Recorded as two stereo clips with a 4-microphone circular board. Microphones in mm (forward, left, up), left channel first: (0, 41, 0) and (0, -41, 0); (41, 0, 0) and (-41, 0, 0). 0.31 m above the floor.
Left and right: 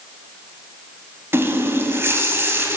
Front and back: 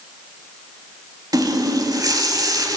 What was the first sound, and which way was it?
A running tap, 145° right.